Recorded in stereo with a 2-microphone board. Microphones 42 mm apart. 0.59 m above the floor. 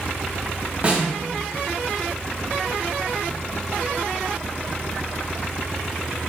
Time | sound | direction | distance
0.8 | a snare drum | 30° right (ahead or behind) | 1.6 m